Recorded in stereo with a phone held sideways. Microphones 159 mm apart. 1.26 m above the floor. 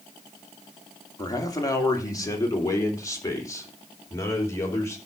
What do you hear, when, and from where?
1.2 s a man speaking: 25° left (ahead or behind), 3 m; by 5.0 s 20° left (ahead or behind), 4.5 m